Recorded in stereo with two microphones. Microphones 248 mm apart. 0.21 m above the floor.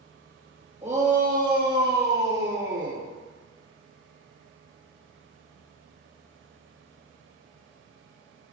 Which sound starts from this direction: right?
A shout, at 0.8 s.